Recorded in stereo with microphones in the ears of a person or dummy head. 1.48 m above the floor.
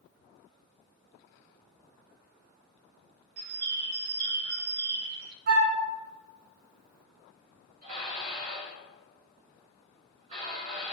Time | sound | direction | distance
3.4 | a bird | 65° right (ahead or behind) | 0.7 m
5.5 | a flute | 55° right (ahead or behind) | 1.4 m
7.8 | dishes clattering | 50° right (ahead or behind) | 2.5 m